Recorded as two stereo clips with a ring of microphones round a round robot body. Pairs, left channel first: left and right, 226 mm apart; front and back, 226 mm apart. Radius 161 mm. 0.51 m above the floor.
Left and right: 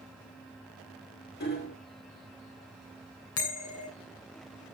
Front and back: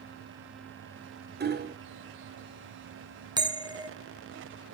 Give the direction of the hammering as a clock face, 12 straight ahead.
7 o'clock.